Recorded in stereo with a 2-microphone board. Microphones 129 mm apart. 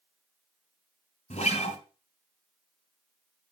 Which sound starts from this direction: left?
A guitar, at 1.3 s.